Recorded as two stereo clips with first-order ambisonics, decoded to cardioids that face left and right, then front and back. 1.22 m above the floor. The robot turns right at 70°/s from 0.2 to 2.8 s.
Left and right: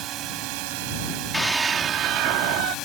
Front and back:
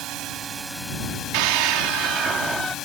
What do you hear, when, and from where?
0.0 s a drone: 135° right; by 2.9 s 50° left
1.3 s a scream: 175° left; by 2.8 s 85° right